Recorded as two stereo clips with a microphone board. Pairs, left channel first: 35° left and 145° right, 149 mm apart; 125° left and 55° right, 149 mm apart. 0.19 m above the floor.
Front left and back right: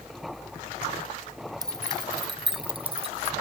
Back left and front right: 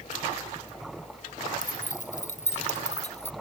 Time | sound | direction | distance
1.6 | keys jangling | 150° left | ?